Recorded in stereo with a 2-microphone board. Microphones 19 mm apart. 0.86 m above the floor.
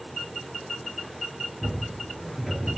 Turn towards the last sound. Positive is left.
turn(degrees=-5)  # may be behind; listen again after turning